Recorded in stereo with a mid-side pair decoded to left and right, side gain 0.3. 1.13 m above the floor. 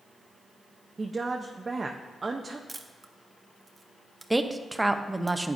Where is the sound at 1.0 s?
40° right, 0.7 m.